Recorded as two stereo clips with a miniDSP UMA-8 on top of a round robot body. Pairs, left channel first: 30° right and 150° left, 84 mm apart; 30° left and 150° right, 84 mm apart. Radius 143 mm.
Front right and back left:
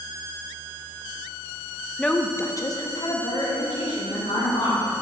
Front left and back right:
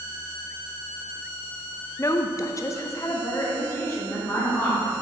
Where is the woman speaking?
50° left, 0.6 m; by 4.9 s 35° right, 2.0 m.